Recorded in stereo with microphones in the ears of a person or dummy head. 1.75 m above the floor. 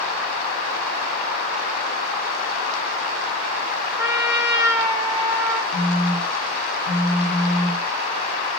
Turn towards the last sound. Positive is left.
turn(degrees=15)  # may be behind; listen again after turning